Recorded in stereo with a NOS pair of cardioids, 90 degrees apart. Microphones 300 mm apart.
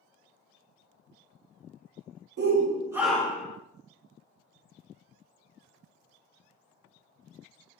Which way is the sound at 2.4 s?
35° right.